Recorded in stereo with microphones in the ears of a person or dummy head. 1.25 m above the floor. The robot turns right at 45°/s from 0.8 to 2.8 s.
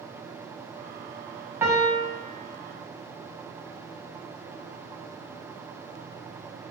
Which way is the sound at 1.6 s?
15° right (ahead or behind).